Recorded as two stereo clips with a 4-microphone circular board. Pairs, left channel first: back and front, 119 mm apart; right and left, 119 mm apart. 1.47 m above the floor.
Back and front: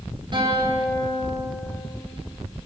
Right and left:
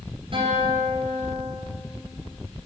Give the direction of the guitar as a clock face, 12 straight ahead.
10 o'clock.